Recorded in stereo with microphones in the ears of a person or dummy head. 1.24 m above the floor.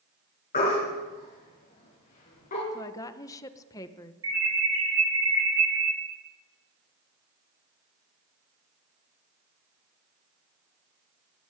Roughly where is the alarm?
Centre.